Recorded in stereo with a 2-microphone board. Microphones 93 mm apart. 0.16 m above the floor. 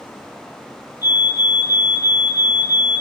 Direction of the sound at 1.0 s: 25° right (ahead or behind).